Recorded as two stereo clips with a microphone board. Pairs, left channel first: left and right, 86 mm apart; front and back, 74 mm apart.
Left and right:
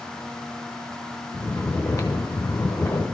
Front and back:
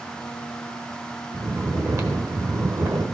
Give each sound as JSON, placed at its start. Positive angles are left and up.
{"t": 1.3, "sound": "snoring", "azimuth_deg": 145, "distance_m": 1.1}